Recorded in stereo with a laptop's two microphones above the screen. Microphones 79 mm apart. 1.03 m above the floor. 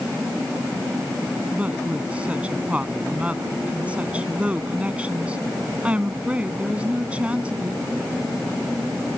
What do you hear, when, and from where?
1.5 s a woman speaking: 15° right (ahead or behind)